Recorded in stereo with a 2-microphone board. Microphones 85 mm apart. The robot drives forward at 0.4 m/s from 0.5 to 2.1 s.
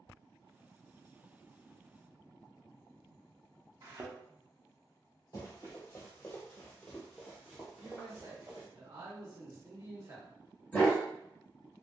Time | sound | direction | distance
3.8 | a thud | 45° right (ahead or behind) | 0.5 m
5.3 | running footsteps | 40° left (ahead or behind) | 1.3 m
7.8 | a man speaking | 50° right (ahead or behind) | 1.1 m
10.7 | a dog barking | 15° left (ahead or behind) | 1.4 m